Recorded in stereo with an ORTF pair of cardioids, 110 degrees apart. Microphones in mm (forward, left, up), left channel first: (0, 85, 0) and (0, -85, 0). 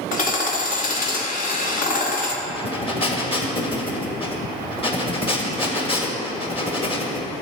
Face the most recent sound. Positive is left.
turn(degrees=30)